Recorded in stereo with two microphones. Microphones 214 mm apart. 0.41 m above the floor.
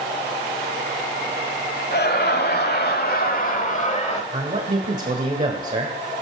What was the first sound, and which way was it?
Laughter, 55° left (ahead or behind).